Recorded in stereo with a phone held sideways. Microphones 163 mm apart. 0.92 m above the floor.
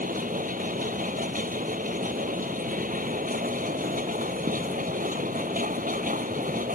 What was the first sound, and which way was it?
A machine running, 60° right (ahead or behind).